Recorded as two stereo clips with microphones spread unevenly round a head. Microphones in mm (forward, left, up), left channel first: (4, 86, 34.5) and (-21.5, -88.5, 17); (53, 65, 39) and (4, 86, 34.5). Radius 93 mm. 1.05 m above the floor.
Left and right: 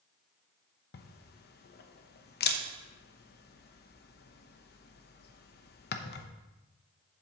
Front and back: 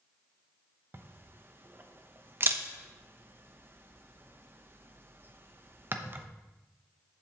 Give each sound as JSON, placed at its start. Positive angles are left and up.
{"t": 0.9, "sound": "a camera shutter", "azimuth_deg": 115, "distance_m": 0.9}